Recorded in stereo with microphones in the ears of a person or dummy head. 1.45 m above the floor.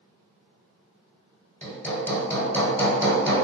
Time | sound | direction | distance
1.6 | hammering | 10° left (ahead or behind) | 1.2 m